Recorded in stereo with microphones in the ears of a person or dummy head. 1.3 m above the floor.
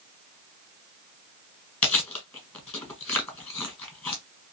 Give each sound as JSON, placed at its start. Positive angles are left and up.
{"t": 1.8, "sound": "chewing", "side_deg": 10, "distance_m": 1.6}